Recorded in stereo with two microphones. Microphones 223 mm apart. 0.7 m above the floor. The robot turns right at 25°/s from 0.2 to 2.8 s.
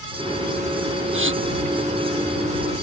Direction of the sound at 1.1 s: 65° right (ahead or behind).